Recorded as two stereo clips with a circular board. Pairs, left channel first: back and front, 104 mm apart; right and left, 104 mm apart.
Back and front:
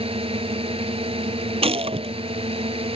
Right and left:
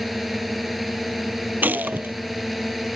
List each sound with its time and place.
0.0 s a drone: straight ahead
1.6 s a gunshot: 15° left